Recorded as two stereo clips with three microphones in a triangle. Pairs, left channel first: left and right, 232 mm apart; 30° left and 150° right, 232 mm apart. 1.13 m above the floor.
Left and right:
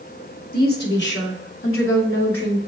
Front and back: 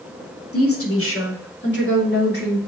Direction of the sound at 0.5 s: 40° left.